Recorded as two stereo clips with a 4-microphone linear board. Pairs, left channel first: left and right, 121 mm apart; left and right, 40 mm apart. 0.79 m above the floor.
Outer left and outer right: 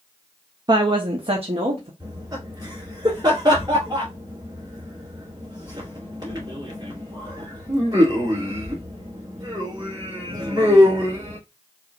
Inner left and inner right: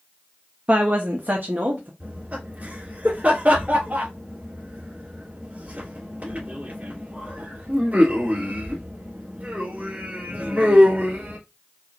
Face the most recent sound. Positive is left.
turn(degrees=-35)  # may be behind; listen again after turning